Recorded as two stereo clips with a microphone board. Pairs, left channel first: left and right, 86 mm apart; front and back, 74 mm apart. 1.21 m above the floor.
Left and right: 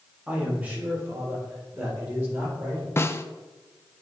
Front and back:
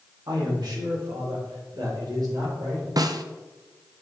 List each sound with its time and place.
0.3 s a man speaking: 165° right, 2.5 m; by 2.9 s 150° right, 6 m
3.0 s a snare drum: 150° left, 0.5 m